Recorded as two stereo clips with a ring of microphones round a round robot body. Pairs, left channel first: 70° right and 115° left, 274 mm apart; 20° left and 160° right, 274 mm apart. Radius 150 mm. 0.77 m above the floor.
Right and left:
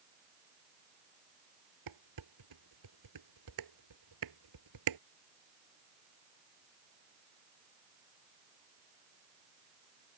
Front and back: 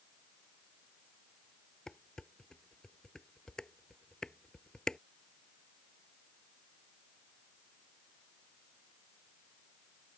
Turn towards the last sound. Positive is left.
turn(degrees=110)